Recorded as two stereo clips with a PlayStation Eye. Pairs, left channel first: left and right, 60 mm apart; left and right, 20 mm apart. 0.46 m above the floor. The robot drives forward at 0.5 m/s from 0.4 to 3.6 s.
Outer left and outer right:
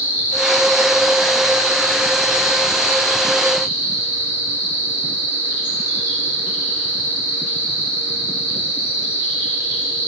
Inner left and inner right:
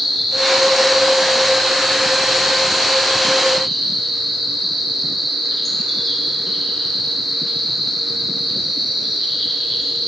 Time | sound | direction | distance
0.0 | an insect | 30° right (ahead or behind) | 2.5 m